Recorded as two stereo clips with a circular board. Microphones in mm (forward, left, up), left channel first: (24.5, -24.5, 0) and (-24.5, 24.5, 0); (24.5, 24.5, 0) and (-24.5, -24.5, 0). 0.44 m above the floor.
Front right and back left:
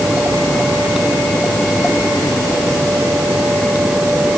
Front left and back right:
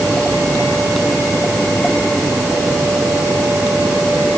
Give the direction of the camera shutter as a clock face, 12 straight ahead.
I don't hear a camera shutter.